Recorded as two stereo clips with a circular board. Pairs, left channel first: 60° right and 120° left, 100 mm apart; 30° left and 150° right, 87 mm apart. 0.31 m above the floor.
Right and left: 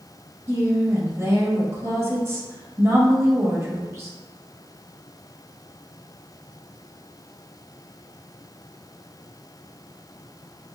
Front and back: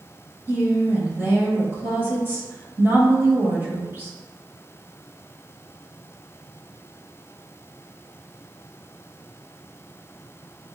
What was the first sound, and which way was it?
A woman speaking, 165° left.